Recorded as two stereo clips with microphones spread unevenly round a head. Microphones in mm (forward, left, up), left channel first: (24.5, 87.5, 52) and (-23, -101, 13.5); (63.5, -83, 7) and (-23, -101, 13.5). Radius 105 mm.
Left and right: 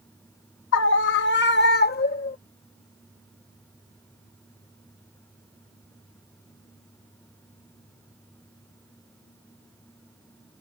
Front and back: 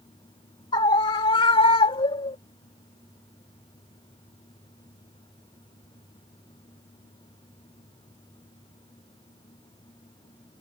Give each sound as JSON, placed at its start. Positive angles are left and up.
{"t": 0.7, "sound": "a scream", "azimuth_deg": 55}